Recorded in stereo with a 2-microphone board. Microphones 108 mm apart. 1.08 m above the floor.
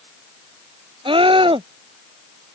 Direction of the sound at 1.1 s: 50° right (ahead or behind).